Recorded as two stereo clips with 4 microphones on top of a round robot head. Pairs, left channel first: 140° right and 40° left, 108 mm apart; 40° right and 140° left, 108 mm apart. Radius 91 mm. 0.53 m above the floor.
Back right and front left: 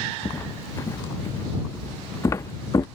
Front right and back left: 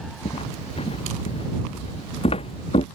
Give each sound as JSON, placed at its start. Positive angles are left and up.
{"t": 0.2, "sound": "footsteps", "azimuth_deg": -75}